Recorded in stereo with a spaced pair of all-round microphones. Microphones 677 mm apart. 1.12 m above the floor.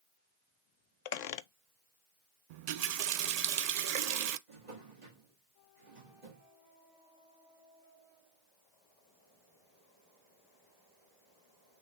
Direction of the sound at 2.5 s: 70° right (ahead or behind).